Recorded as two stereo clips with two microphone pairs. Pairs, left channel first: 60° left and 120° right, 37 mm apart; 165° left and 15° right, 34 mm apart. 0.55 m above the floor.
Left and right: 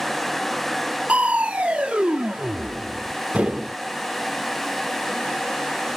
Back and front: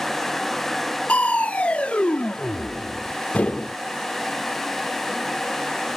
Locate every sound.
1.1 s crushing: 160° right, 1.4 m